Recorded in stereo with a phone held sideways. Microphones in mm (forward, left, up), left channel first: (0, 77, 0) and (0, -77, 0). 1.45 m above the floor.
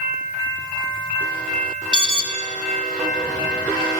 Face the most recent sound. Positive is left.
turn(degrees=-30)  # may be behind; listen again after turning